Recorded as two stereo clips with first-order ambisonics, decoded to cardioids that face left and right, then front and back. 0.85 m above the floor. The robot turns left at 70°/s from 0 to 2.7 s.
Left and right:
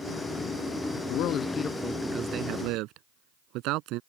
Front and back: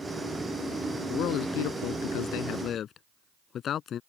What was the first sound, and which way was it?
A man speaking, 55° left.